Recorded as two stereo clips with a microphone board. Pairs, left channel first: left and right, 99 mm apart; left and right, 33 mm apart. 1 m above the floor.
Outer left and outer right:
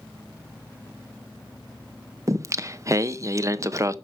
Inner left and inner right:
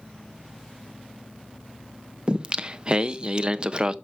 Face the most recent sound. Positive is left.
turn(degrees=-30)  # may be behind; listen again after turning